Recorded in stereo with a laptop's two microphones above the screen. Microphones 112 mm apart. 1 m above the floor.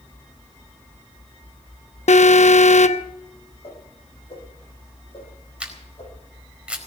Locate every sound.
2.1 s an alarm: 85° left, 0.8 m
3.6 s a whoosh: 60° left (ahead or behind), 9 m
5.6 s a camera shutter: 10° right (ahead or behind), 4.5 m